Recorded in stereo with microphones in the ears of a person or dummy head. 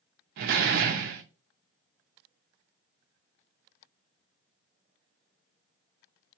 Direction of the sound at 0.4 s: 60° right (ahead or behind).